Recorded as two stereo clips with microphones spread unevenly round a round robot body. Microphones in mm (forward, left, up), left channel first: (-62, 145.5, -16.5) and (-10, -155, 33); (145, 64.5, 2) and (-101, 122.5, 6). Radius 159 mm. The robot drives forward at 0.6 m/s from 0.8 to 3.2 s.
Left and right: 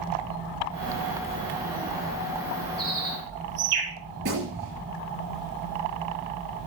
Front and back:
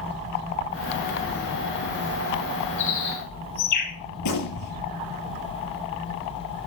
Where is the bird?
35° right, 5.5 m.